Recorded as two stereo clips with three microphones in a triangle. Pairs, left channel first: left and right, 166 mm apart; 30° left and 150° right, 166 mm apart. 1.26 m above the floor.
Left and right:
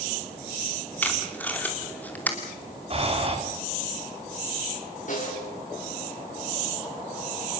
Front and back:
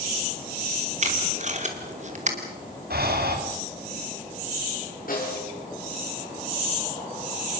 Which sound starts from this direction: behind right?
Breathing, at 2.9 s.